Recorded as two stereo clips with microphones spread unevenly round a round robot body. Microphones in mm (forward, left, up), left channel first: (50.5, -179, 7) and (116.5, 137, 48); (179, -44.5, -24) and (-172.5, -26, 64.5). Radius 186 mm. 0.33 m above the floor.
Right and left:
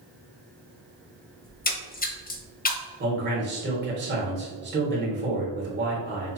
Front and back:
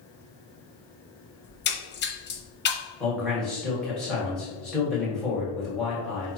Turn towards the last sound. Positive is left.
turn(degrees=55)